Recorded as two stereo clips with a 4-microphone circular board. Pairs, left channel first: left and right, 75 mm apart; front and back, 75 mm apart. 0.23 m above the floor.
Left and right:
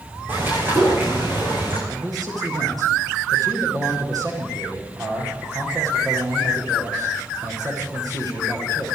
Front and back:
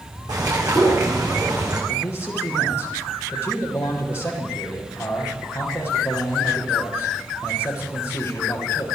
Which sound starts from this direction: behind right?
A bird, at 0.3 s.